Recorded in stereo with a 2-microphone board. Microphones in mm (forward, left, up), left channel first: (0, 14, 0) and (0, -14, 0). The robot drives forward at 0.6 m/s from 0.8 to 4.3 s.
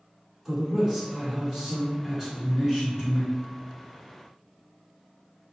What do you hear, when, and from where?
0.5 s a man speaking: 15° right (ahead or behind), 1.5 m; by 3.3 s 10° right (ahead or behind), 1.9 m